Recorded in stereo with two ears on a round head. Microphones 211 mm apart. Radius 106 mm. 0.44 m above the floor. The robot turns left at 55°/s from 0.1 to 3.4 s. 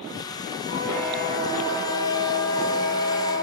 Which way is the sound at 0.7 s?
35° left.